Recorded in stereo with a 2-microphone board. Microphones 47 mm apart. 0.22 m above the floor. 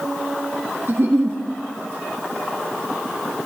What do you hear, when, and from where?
0.9 s a giggle: 50° right (ahead or behind), 3.5 m